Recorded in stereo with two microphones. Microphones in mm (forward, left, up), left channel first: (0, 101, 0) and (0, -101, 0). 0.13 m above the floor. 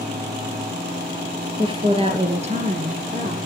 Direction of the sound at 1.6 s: 25° right (ahead or behind).